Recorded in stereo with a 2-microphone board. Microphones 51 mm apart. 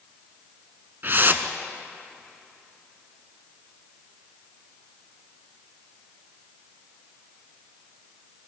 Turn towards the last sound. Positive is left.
turn(degrees=-45)  # may be behind; listen again after turning